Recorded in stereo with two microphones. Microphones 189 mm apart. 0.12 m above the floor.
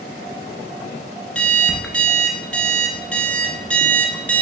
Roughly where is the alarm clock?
Centre.